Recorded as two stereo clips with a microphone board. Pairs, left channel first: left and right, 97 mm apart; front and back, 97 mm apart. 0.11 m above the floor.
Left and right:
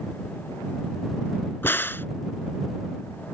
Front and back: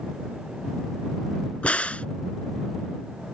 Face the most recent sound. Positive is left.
turn(degrees=60)